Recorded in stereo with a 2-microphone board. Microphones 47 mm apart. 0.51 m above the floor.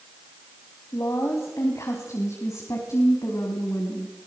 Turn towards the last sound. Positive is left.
turn(degrees=65)  # may be behind; listen again after turning